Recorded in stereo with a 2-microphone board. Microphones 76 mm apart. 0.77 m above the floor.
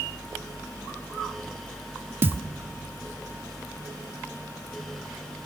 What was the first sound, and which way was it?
A thud, 30° right (ahead or behind).